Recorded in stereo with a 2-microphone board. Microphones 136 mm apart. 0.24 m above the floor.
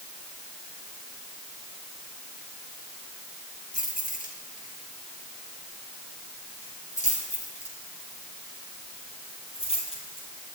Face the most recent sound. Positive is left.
turn(degrees=40)  # may be behind; listen again after turning